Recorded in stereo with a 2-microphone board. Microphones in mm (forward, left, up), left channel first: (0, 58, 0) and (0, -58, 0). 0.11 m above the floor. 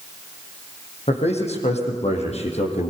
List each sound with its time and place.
1.1 s a man speaking: 65° left (ahead or behind), 5 m; by 2.9 s 70° left (ahead or behind), 4 m